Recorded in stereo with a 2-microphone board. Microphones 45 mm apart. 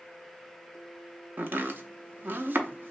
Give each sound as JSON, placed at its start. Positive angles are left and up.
{"t": 1.4, "sound": "chopping", "side_deg": -50, "distance_m": 0.6}